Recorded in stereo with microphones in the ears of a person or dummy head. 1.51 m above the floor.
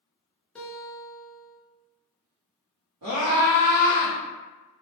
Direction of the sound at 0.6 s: 5° left (ahead or behind).